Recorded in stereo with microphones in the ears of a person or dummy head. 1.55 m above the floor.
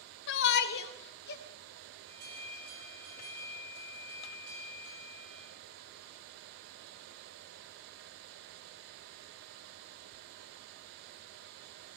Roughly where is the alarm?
Right.